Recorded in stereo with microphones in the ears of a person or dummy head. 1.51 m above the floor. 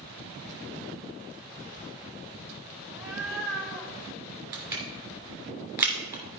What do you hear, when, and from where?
2.9 s a cat meowing: 15° right (ahead or behind), 0.9 m; by 3.9 s 15° left (ahead or behind), 1.6 m
4.5 s crushing: 10° right (ahead or behind), 2.5 m